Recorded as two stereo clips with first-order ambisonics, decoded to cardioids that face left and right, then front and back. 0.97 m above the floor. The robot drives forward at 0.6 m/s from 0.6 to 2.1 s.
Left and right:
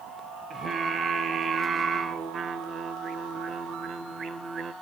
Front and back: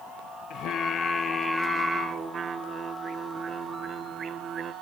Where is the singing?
30° right, 0.9 m; by 4.7 s 135° right, 0.8 m.